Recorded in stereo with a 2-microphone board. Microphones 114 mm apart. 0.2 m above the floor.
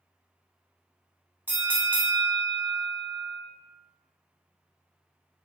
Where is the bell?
15° right (ahead or behind), 0.6 m.